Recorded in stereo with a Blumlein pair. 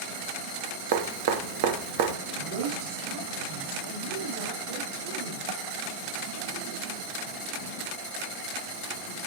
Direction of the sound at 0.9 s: 50° right.